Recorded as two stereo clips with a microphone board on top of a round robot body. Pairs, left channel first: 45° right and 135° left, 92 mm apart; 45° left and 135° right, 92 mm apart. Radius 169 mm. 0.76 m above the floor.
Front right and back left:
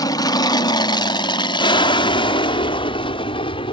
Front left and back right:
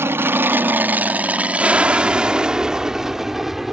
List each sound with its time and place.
0.0 s an aircraft: 75° right; by 3.8 s 50° right